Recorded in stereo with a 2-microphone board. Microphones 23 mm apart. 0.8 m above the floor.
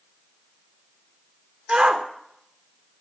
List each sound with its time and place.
1.7 s a shout: 25° right (ahead or behind), 3 m